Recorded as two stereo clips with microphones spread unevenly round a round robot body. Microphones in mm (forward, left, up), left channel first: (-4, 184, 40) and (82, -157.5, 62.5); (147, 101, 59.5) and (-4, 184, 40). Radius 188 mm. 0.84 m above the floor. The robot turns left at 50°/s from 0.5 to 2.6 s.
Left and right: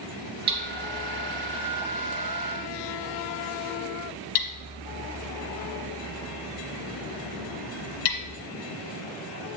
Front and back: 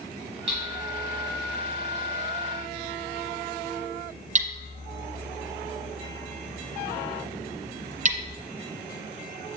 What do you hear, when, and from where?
0.5 s hammering: 150° right, 1.5 m; by 8.4 s 105° left, 1.5 m